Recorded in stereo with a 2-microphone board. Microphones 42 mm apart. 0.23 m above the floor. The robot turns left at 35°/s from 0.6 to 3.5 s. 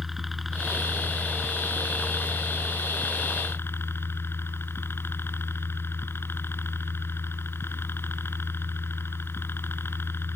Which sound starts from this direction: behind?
A helicopter, at 0.0 s.